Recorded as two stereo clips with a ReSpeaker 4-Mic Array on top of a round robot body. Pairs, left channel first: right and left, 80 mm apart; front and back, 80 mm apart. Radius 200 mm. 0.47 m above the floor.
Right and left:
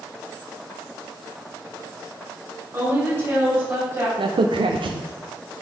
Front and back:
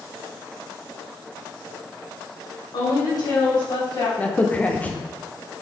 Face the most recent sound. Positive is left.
turn(degrees=70)